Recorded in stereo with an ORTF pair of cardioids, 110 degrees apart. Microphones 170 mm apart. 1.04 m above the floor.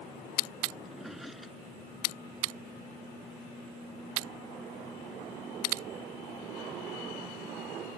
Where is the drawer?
Straight ahead.